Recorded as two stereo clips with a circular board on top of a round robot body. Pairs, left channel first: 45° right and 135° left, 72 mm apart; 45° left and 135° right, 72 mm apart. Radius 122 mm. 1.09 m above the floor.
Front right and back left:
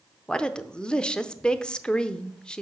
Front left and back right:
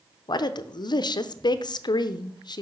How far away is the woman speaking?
About 0.6 m.